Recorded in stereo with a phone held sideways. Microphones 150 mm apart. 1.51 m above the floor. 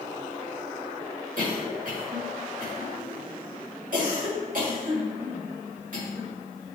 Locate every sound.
1.4 s a cough: 65° right (ahead or behind), 2.5 m